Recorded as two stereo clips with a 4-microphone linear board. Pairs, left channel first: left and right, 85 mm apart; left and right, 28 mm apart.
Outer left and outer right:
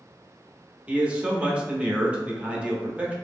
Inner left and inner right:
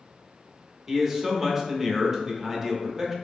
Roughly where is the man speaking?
Centre.